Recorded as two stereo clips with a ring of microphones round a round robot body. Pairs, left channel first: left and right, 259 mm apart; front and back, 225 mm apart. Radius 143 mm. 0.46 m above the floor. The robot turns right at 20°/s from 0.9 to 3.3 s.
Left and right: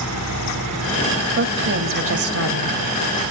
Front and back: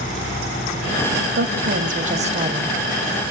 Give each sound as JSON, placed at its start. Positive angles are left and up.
{"t": 1.4, "sound": "a woman speaking", "azimuth_deg": -135, "distance_m": 2.5}